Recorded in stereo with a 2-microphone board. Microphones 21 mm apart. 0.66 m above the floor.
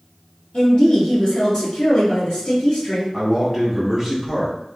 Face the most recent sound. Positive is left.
turn(degrees=-5)  # may be behind; listen again after turning